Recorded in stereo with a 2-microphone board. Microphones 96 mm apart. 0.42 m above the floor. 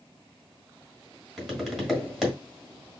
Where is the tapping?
5° right (ahead or behind), 1.4 m.